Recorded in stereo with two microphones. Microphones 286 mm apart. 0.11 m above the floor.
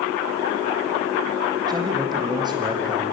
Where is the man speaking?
15° right (ahead or behind), 5 m.